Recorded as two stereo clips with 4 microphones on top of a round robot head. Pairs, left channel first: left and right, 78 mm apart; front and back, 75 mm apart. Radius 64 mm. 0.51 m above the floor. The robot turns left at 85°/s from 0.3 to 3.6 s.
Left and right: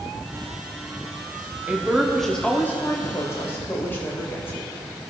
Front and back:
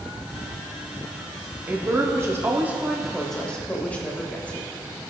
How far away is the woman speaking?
About 1.1 m.